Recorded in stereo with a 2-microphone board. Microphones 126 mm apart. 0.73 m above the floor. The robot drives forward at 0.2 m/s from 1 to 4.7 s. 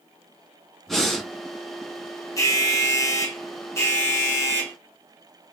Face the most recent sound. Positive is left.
turn(degrees=20)  # may be behind; listen again after turning